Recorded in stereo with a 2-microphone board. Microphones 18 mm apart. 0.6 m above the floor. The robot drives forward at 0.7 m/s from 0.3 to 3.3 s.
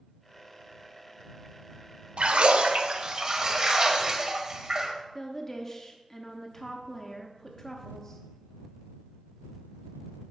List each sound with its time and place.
2.2 s a splash: 65° right (ahead or behind), 0.5 m; by 4.9 s 35° right (ahead or behind), 0.8 m
5.2 s a woman speaking: 20° left (ahead or behind), 0.5 m